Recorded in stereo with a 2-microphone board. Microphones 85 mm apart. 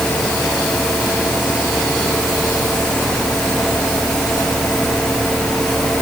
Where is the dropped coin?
No dropped coin in this recording.